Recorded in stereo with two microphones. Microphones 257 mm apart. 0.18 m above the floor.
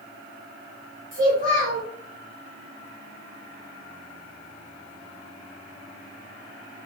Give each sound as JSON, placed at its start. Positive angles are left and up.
{"t": 1.1, "sound": "a child speaking", "side_deg": -30, "distance_m": 2.0}